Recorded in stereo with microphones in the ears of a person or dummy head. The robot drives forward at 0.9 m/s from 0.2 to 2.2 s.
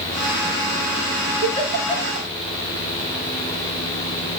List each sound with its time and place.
1.4 s a giggle: 40° right (ahead or behind), 5.5 m; by 2.3 s 35° right (ahead or behind), 6 m